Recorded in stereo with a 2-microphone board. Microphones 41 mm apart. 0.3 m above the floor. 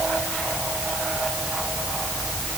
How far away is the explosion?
I don't hear an explosion.